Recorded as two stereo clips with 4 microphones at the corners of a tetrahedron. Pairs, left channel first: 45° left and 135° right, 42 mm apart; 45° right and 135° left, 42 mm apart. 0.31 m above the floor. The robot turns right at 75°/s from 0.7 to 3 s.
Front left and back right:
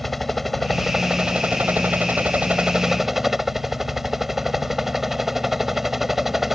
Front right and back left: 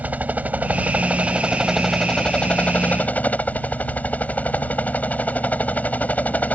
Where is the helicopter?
135° left; by 6.5 s 55° right.